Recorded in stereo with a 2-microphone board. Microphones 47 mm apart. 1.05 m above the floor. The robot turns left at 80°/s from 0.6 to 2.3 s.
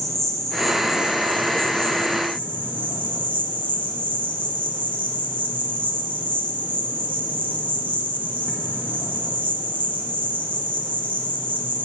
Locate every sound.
0.0 s an insect: 5° left, 0.8 m; by 11.8 s 130° right, 0.8 m